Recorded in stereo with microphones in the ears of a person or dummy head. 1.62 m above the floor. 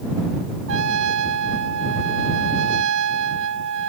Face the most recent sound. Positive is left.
turn(degrees=-75)  # may be behind; listen again after turning